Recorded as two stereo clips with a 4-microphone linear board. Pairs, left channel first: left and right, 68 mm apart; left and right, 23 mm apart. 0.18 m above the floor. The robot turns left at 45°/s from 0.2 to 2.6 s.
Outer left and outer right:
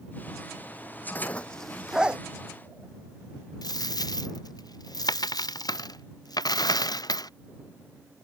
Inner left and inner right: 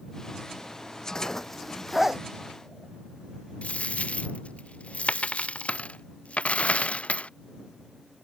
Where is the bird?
I don't hear a bird.